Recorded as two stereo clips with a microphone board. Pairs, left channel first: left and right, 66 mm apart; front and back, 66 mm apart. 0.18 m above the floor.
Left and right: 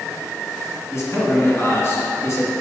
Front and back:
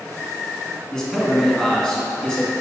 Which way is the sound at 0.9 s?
75° left.